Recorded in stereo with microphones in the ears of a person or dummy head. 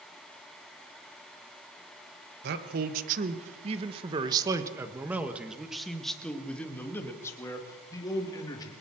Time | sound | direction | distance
2.4 | a man speaking | 55° right (ahead or behind) | 1.7 m